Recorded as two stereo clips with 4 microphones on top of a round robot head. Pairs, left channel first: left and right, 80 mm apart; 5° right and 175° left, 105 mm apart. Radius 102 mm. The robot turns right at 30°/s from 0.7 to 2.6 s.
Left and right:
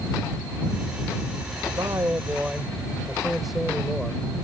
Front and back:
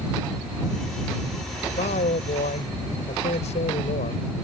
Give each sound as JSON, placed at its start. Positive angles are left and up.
{"t": 1.7, "sound": "a man speaking", "azimuth_deg": -30}